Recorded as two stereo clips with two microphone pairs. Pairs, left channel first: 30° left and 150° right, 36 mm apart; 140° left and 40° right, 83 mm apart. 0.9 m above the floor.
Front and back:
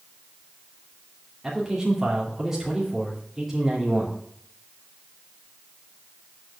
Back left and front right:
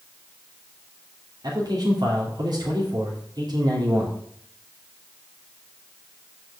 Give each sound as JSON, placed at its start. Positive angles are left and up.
{"t": 1.4, "sound": "a man speaking", "azimuth_deg": -70, "distance_m": 2.0}